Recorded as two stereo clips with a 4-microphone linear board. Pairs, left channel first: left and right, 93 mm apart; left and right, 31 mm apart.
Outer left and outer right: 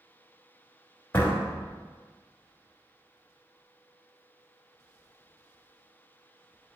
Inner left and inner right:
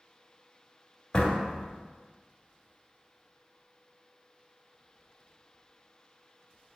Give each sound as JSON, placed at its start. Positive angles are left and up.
{"t": 1.1, "sound": "a door slam", "side_deg": 25, "distance_m": 1.3}